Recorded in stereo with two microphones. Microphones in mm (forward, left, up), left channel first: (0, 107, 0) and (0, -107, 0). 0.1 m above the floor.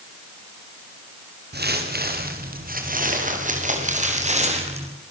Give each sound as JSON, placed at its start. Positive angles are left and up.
{"t": 1.5, "sound": "footsteps", "side_deg": -50, "distance_m": 5.0}